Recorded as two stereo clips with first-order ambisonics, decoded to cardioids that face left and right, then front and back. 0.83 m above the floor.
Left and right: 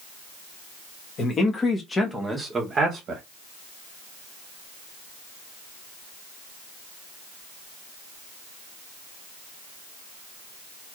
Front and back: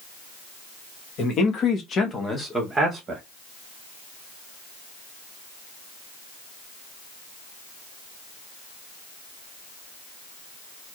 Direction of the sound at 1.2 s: 35° left.